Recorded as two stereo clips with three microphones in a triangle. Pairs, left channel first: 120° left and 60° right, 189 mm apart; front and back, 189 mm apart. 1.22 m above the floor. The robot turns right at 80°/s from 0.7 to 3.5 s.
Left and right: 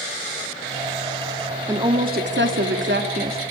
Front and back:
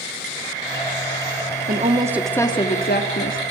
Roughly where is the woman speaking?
Behind right.